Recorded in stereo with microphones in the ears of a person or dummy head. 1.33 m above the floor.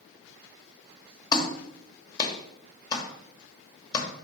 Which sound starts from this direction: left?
A clap, at 1.3 s.